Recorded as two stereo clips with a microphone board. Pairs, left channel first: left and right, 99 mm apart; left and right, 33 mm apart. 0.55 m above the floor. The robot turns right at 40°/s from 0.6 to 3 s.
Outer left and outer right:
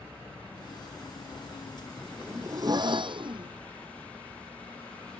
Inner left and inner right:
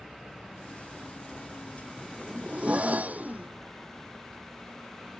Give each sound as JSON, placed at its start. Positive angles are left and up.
{"t": 2.0, "sound": "a zipper", "azimuth_deg": -165}